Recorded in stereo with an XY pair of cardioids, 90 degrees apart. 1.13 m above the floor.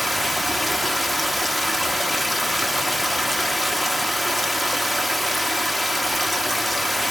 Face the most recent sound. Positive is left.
turn(degrees=0)